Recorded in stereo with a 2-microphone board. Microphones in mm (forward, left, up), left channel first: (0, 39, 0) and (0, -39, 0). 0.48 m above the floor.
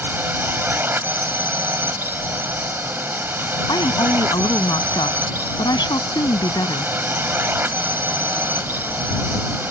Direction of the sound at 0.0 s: 25° right (ahead or behind).